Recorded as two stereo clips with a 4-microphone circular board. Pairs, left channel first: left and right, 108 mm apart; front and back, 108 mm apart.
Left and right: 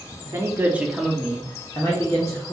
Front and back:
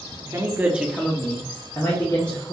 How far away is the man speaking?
About 0.9 m.